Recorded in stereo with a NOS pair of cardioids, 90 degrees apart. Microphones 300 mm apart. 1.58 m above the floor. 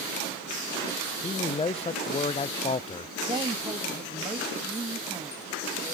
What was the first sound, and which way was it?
A man speaking, 20° left.